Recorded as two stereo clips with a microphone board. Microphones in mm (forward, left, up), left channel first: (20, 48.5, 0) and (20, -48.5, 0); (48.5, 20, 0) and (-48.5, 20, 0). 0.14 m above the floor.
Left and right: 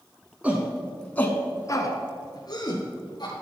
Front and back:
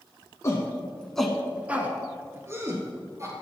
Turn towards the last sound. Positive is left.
turn(degrees=125)